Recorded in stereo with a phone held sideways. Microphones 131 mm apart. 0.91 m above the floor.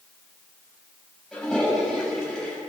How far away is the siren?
I don't hear a siren.